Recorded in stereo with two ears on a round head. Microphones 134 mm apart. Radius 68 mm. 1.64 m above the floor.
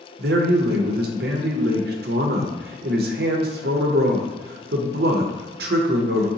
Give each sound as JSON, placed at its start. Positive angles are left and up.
{"t": 0.2, "sound": "a man speaking", "side_deg": -70, "distance_m": 0.5}